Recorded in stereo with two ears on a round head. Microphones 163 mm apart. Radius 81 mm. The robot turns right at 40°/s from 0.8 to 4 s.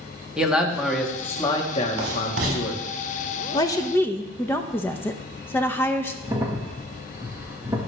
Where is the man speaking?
5° right, 1.5 m; by 2.8 s 75° left, 1.5 m.